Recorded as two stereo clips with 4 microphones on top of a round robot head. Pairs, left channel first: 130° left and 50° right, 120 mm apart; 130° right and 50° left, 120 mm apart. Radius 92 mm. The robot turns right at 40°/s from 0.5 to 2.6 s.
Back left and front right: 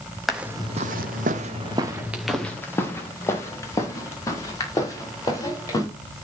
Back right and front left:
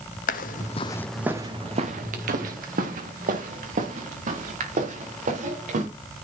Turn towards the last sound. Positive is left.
turn(degrees=70)